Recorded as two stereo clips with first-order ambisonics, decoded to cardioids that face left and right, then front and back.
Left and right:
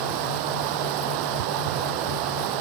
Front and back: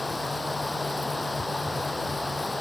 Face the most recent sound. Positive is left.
turn(degrees=-80)